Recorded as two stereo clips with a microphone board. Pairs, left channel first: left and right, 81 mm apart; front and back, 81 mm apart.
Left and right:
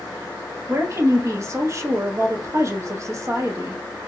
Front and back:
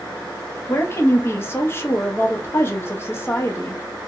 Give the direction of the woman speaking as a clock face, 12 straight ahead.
2 o'clock.